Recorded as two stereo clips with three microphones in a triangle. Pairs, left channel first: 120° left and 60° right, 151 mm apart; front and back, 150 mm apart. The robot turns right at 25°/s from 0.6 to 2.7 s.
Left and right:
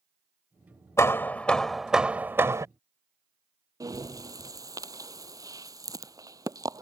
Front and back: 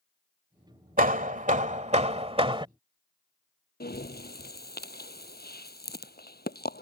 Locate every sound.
1.0 s hammering: 170° right; by 2.7 s 130° right
3.8 s breathing: 10° left